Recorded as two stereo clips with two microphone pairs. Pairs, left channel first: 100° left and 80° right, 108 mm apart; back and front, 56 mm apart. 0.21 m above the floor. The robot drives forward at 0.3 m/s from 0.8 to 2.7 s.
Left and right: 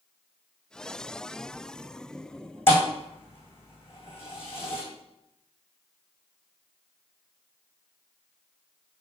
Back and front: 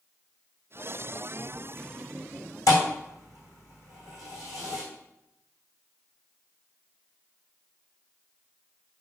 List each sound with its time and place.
2.7 s a thud: 165° left, 3.5 m